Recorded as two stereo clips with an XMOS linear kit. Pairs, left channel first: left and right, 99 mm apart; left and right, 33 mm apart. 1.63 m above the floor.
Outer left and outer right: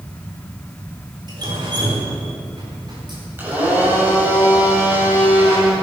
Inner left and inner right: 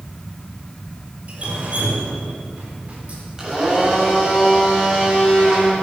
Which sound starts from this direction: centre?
A blender, at 3.4 s.